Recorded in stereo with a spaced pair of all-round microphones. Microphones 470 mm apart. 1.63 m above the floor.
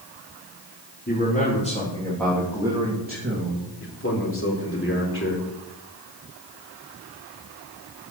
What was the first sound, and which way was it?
A man speaking, 25° left (ahead or behind).